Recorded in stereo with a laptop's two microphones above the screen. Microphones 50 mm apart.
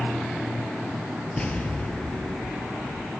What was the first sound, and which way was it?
An explosion, 20° left (ahead or behind).